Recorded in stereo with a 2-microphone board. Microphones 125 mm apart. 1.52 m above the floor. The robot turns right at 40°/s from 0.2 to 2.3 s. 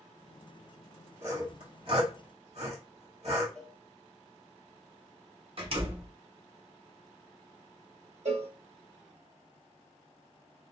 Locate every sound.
1.2 s sawing: 20° right (ahead or behind), 1.8 m; by 3.5 s 55° right (ahead or behind), 1.8 m
3.5 s a cowbell: 5° left (ahead or behind), 0.9 m
5.6 s a door slam: 50° right (ahead or behind), 1.0 m
8.2 s a cowbell: 55° right (ahead or behind), 0.8 m